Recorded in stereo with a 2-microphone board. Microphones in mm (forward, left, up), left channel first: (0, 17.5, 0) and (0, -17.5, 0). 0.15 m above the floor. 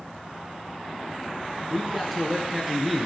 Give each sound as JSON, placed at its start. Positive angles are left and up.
{"t": 1.7, "sound": "a man speaking", "side_deg": -10, "distance_m": 1.8}